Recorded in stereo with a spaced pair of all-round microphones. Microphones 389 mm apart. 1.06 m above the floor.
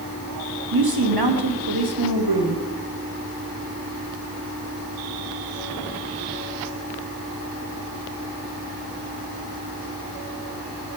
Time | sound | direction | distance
0.7 | a woman speaking | 85° right | 1.4 m